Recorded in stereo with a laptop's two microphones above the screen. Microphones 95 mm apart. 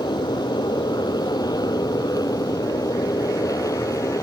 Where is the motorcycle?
50° left (ahead or behind); by 4.2 s 35° left (ahead or behind).